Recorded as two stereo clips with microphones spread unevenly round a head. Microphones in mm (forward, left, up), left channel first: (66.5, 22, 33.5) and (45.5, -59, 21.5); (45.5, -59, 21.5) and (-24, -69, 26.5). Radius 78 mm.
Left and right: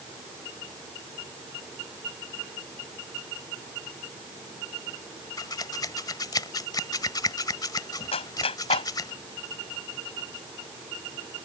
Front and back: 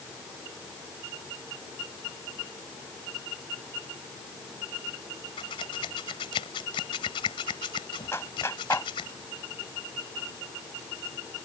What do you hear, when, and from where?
5.4 s scissors: 40° left
8.1 s a clap: 80° left